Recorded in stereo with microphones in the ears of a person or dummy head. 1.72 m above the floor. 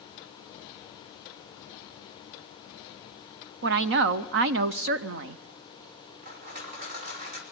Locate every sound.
3.6 s a woman speaking: 50° right (ahead or behind), 0.5 m
6.2 s crushing: 50° right (ahead or behind), 2.5 m